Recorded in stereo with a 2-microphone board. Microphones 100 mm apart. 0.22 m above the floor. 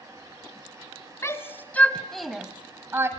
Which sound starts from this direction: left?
A shout, at 1.2 s.